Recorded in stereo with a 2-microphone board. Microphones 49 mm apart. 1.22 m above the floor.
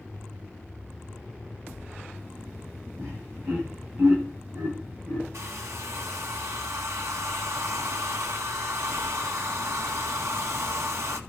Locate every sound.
3.0 s laughter: 65° right (ahead or behind), 9 m; by 5.2 s 50° right (ahead or behind), 11.5 m
5.3 s a hair dryer: 75° right (ahead or behind), 1.7 m